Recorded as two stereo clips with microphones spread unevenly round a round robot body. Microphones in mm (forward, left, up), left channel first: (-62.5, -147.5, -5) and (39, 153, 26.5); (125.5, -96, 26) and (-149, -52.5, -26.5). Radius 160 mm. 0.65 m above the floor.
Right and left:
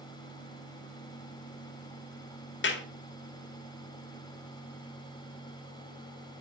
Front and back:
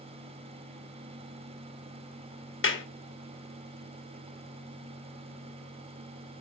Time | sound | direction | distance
2.6 | a clap | 55° right | 1.7 m